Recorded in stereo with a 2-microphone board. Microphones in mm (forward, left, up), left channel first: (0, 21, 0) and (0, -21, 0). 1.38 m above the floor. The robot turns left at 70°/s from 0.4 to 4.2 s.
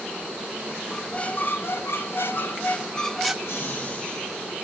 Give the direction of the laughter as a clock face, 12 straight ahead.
10 o'clock.